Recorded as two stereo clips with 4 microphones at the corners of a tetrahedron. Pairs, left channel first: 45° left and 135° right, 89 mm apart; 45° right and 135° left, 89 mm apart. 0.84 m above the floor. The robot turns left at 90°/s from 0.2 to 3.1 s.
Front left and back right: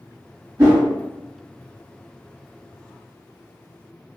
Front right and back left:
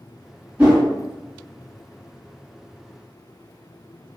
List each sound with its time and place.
0.6 s a whoosh: 155° right, 1.7 m; by 0.8 s 175° right, 1.7 m